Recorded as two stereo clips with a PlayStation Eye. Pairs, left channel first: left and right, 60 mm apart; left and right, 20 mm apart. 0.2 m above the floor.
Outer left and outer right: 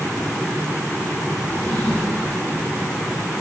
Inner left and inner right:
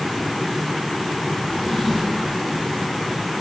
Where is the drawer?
60° left (ahead or behind), 8.5 m.